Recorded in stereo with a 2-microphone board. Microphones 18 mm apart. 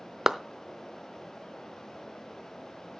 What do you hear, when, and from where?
0.3 s a clap: 20° right (ahead or behind), 0.6 m